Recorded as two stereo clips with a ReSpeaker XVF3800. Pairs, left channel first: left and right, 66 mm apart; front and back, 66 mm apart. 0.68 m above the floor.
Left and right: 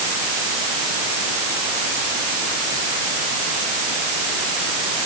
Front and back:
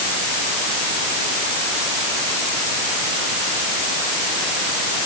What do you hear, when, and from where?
Only background noise.